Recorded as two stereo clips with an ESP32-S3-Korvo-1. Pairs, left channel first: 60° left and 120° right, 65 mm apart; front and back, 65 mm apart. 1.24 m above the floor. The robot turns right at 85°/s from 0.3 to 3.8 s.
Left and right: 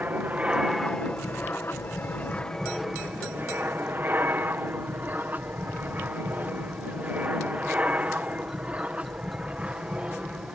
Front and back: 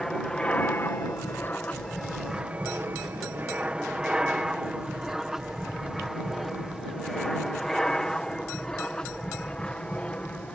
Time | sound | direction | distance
0.0 | an aircraft | 75° right | ?